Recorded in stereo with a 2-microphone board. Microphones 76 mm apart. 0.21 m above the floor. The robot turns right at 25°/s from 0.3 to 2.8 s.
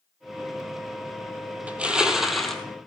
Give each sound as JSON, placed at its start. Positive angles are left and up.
{"t": 1.7, "sound": "crushing", "side_deg": -20, "distance_m": 1.3}